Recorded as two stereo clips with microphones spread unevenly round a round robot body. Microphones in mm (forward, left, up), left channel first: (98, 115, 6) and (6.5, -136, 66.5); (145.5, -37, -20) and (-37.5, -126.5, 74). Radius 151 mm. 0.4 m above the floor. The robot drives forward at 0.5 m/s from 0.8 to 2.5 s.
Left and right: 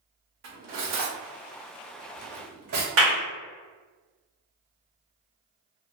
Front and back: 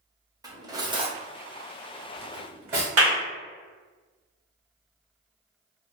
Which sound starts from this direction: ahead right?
Cutlery clinking, at 0.4 s.